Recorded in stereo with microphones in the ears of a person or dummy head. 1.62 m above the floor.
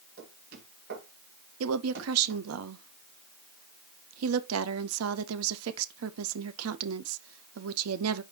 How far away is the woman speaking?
About 0.6 m.